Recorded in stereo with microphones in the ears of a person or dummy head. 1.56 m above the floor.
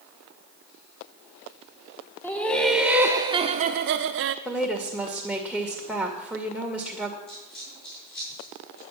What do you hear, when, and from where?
2.2 s laughter: 10° left (ahead or behind), 1.1 m; by 4.3 s 60° right (ahead or behind), 0.8 m
4.5 s a woman speaking: 5° left (ahead or behind), 2 m
7.3 s a dropped coin: 45° left (ahead or behind), 6.5 m